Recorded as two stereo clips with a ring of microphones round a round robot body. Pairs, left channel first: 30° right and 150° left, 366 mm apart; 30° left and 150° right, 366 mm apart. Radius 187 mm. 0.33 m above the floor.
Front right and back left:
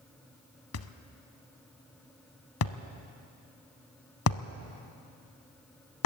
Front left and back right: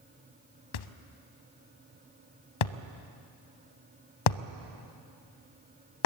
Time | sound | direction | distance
0.7 | a thud | 25° left | 0.8 m